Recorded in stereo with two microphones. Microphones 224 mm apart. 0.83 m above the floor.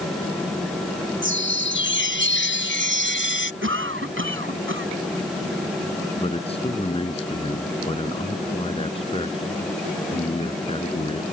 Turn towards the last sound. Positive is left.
turn(degrees=25)  # may be behind; listen again after turning